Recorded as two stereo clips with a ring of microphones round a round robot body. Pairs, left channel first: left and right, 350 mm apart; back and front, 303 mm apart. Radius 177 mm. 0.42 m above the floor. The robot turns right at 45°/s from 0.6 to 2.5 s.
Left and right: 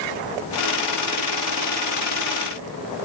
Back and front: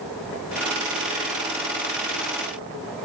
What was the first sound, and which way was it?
Only background noise.